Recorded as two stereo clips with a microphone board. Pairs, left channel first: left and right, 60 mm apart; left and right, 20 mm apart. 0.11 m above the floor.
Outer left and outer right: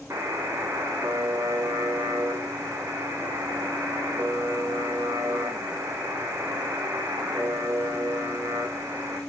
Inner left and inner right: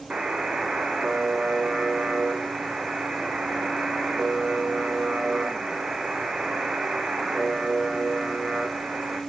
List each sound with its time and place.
0.1 s a buzzer: 55° right (ahead or behind), 2 m